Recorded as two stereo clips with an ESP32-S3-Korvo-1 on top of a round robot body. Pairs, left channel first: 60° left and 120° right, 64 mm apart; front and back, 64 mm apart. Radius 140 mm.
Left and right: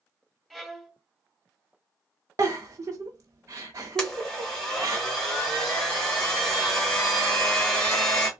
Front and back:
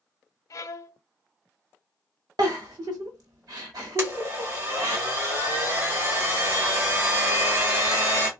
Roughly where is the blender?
Behind left.